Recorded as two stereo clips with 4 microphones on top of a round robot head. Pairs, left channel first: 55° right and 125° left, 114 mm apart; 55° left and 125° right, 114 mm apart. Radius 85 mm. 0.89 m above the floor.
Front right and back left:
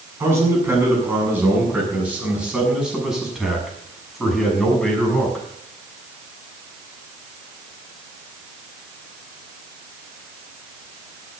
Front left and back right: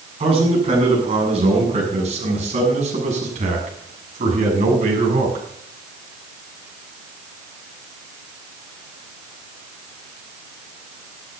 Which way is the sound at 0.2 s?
165° right.